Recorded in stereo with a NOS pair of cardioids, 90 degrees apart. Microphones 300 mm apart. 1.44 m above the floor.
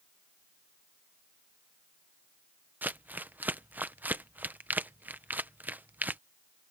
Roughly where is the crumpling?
Ahead.